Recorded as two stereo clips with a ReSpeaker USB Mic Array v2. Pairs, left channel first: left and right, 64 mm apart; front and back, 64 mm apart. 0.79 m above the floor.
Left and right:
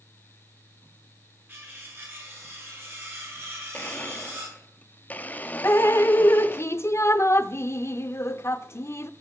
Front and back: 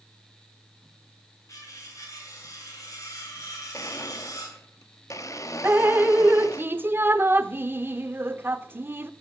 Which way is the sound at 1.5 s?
35° right.